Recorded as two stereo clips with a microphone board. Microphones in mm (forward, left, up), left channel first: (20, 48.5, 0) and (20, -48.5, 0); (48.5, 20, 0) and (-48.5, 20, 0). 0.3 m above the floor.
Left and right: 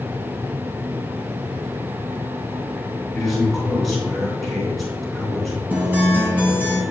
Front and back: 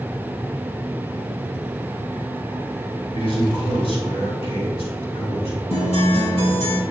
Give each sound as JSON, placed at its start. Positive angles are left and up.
{"t": 3.1, "sound": "a man speaking", "azimuth_deg": 0, "distance_m": 3.5}
{"t": 5.7, "sound": "a guitar", "azimuth_deg": -15, "distance_m": 3.5}